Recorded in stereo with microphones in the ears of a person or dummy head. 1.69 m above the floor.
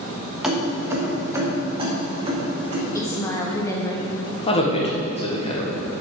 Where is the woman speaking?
20° left (ahead or behind), 1.7 m.